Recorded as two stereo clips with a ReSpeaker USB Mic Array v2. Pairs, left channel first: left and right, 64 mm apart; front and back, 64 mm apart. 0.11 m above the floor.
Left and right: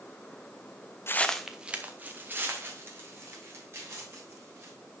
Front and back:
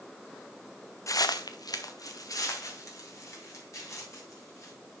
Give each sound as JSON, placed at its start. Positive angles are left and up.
{"t": 1.1, "sound": "footsteps", "azimuth_deg": 40, "distance_m": 0.5}